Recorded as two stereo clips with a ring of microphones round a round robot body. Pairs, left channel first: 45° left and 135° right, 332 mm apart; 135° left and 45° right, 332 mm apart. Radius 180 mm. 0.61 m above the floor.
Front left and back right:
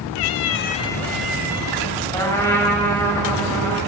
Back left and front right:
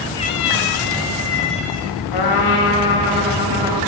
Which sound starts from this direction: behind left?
A trumpet, at 2.1 s.